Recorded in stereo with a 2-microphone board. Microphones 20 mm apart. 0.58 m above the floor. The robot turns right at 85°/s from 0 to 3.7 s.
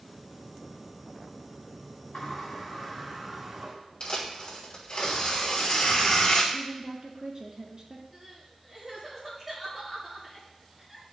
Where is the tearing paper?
60° left (ahead or behind), 2 m.